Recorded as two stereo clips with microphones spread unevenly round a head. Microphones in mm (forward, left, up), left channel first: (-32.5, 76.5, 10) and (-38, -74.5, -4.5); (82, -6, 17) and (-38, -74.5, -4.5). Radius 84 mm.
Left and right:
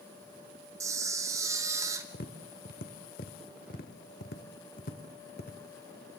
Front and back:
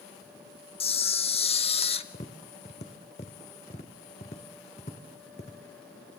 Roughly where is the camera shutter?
Ahead.